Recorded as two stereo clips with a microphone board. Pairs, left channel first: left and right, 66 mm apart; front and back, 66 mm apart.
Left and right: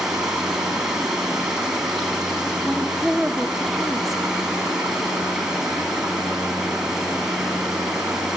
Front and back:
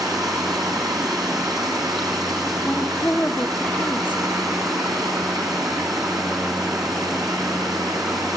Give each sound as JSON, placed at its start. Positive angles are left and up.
{"t": 0.0, "sound": "running water", "azimuth_deg": -165, "distance_m": 3.0}
{"t": 2.6, "sound": "a woman speaking", "azimuth_deg": -5, "distance_m": 0.9}